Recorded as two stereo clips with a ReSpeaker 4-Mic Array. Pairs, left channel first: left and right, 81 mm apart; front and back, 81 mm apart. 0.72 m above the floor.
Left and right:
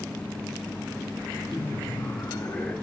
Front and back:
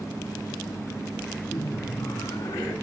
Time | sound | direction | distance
1.5 | laughter | 35° left | 1.6 m